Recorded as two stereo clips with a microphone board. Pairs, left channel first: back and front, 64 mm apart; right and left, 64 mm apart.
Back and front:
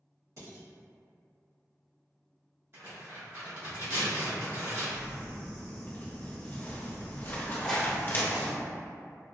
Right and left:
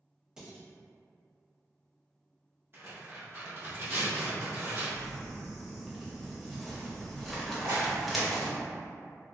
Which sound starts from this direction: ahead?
Dishes clattering, at 0.4 s.